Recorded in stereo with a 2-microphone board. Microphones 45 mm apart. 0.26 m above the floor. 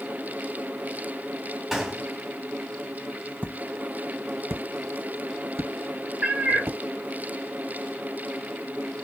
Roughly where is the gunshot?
Centre.